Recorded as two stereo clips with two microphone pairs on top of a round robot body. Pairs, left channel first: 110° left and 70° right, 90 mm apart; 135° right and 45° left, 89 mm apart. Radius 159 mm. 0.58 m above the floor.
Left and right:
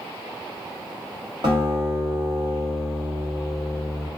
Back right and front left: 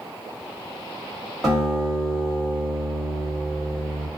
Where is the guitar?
50° right, 1.3 m.